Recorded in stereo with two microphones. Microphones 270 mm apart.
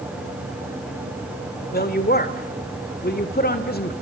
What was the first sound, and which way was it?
A woman speaking, 35° left (ahead or behind).